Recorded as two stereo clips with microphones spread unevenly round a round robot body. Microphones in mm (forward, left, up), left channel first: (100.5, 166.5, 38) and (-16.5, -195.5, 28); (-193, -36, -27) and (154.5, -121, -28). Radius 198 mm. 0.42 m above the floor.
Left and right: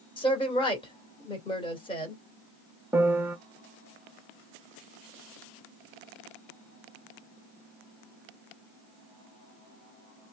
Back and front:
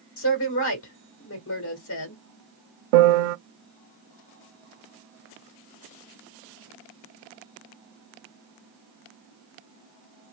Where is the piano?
25° right, 0.5 m.